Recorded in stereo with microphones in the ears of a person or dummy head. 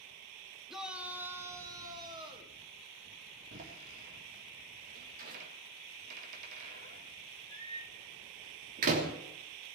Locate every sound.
0.7 s a shout: centre (ahead or behind), 1.7 m; by 2.5 s 30° right (ahead or behind), 3.5 m
3.5 s a door slam: 50° right (ahead or behind), 3 m